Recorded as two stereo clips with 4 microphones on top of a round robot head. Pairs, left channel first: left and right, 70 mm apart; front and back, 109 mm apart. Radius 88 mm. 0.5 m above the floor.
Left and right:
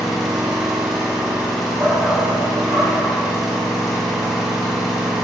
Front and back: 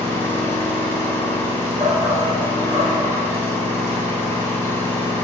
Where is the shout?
145° right, 1.0 m.